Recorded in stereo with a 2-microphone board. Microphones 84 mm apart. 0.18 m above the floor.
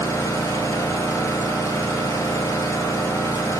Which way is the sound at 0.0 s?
35° left (ahead or behind).